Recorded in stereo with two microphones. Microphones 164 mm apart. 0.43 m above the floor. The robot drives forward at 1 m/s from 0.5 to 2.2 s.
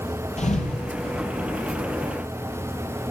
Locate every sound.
0.4 s a thud: 45° left (ahead or behind), 4 m; by 1.3 s 40° left (ahead or behind), 4.5 m